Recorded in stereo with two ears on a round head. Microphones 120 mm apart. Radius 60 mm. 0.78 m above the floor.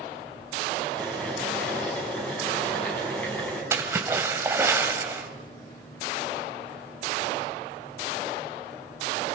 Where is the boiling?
10° left (ahead or behind), 7 m.